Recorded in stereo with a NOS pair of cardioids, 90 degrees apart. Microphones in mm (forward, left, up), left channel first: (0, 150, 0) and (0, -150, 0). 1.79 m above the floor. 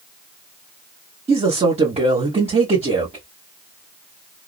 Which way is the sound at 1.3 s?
20° right.